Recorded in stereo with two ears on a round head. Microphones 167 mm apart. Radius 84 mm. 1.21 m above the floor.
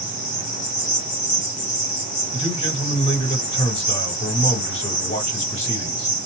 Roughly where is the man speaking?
Left.